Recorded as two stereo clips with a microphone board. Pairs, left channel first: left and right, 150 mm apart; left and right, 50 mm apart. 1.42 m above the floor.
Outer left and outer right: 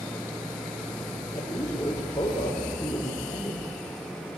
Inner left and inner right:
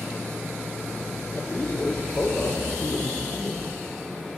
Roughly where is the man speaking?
Left.